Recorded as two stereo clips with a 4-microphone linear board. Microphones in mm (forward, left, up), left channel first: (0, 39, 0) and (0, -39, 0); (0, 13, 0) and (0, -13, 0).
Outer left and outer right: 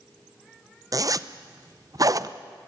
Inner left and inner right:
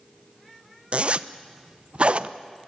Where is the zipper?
50° right (ahead or behind), 0.7 m.